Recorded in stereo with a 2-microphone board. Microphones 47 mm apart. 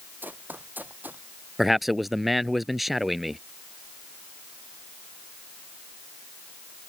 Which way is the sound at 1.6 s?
Centre (ahead or behind).